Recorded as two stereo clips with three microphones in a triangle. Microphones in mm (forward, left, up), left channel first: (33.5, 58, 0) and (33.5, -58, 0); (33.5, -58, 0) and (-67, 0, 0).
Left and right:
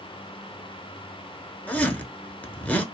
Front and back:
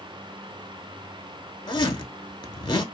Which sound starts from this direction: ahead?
A zipper, at 1.7 s.